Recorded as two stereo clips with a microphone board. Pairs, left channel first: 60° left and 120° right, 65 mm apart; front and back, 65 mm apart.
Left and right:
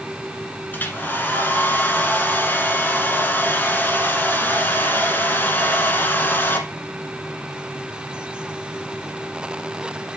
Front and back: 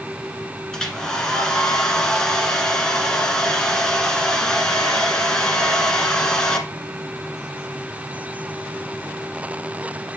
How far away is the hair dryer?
About 1.5 m.